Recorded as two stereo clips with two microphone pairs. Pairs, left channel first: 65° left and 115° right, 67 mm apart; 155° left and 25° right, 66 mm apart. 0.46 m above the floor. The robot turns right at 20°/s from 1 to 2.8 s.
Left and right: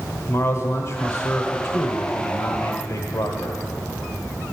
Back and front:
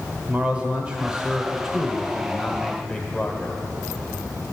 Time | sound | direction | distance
0.3 | a man speaking | 40° left | 1.3 m